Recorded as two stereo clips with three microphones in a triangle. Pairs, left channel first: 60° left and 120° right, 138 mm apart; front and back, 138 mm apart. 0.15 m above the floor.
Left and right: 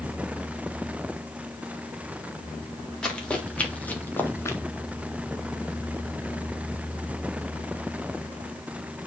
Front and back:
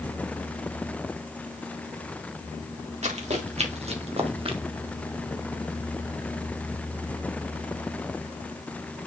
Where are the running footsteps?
145° left, 3.5 m; by 4.6 s 130° left, 1.7 m.